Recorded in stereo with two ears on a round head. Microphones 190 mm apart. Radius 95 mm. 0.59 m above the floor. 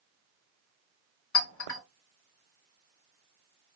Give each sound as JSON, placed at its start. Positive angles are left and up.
{"t": 1.3, "sound": "a clink", "side_deg": 65, "distance_m": 1.9}